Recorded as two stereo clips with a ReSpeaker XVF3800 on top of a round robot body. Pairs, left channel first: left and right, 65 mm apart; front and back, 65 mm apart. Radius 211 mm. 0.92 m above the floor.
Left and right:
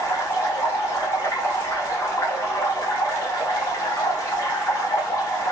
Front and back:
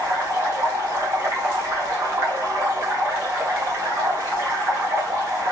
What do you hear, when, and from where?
0.0 s running water: 135° left, 5 m